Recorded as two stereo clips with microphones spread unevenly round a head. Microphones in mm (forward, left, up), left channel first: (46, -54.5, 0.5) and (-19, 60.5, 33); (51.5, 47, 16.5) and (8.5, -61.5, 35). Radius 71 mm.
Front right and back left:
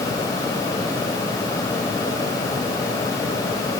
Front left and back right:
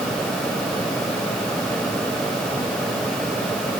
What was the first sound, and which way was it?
Only background noise.